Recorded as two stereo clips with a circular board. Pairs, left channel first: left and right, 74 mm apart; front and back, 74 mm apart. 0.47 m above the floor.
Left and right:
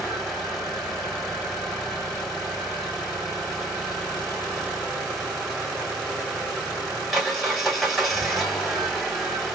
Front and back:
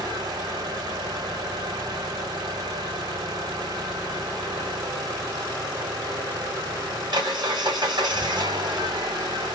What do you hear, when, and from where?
0.0 s an engine running: straight behind, 2.5 m